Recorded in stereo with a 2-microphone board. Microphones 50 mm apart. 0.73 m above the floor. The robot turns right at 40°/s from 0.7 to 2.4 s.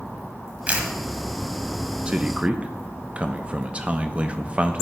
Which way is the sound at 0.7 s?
30° right (ahead or behind).